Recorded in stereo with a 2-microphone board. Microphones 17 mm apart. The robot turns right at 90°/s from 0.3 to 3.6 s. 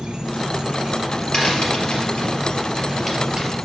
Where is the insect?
110° right, 1.9 m; by 3.6 s 175° right, 1.9 m.